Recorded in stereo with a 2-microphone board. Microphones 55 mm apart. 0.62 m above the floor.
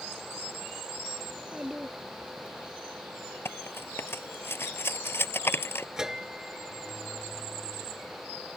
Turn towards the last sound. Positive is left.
turn(degrees=-10)  # may be behind; listen again after turning